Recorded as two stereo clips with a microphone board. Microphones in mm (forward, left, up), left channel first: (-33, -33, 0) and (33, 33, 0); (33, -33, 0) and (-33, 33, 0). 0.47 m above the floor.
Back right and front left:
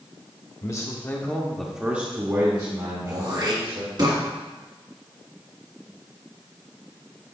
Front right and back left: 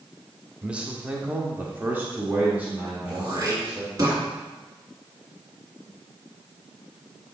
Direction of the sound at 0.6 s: 150° right.